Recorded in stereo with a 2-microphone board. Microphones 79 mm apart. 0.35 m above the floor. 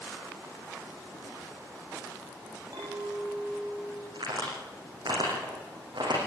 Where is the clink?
60° right (ahead or behind), 9.5 m.